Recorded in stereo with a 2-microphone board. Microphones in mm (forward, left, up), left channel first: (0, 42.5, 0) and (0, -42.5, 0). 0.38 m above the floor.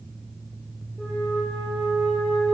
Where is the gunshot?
No gunshot in this recording.